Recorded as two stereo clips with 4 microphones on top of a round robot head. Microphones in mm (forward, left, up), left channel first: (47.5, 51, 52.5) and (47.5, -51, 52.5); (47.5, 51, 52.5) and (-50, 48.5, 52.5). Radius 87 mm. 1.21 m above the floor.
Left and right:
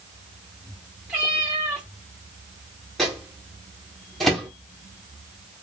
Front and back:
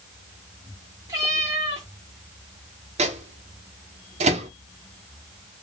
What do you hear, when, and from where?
1.1 s a cat meowing: 160° right, 0.8 m
3.0 s a microwave: straight behind, 0.8 m